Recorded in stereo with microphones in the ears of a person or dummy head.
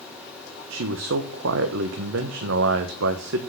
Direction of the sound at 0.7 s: 70° right (ahead or behind).